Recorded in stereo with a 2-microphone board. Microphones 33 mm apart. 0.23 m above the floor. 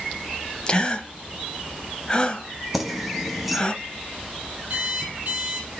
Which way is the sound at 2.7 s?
5° right (ahead or behind).